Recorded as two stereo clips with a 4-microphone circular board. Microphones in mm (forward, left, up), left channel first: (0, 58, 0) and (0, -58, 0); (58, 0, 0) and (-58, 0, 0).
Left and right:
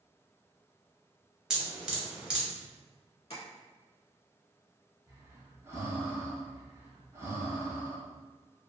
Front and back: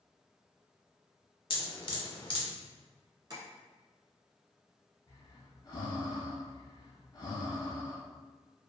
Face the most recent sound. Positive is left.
turn(degrees=-35)